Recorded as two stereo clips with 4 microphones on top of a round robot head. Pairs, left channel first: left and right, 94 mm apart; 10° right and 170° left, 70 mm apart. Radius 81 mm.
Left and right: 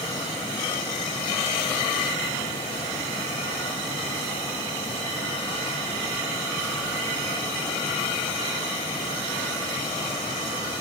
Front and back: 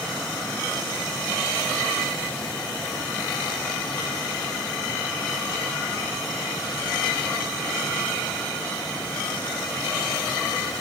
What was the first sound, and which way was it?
Only background noise.